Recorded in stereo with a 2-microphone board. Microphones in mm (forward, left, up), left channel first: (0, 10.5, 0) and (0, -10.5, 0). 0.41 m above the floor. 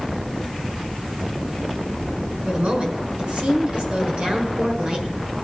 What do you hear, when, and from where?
2.5 s a woman speaking: 55° right (ahead or behind), 5.5 m